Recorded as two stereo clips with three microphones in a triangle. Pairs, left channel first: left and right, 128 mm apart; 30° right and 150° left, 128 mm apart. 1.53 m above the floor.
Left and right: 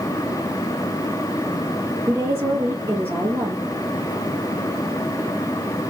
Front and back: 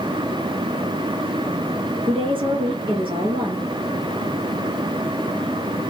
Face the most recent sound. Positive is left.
turn(degrees=-160)